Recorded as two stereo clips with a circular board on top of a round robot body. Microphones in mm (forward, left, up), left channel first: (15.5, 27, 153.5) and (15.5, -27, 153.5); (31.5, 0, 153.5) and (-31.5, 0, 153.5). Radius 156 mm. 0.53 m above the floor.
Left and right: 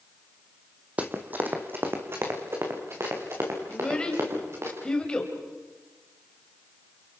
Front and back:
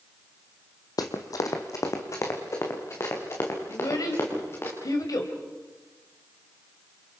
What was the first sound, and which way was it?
Running footsteps, 25° right.